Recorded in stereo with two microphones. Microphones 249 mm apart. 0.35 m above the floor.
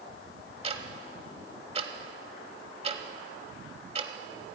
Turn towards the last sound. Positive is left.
turn(degrees=-25)  # may be behind; listen again after turning